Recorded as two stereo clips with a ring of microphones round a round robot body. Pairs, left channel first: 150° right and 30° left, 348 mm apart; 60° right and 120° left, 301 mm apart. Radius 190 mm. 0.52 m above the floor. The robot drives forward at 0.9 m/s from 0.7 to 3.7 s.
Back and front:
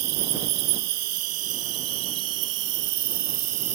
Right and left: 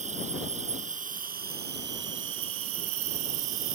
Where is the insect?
50° left; by 3.8 s 80° left.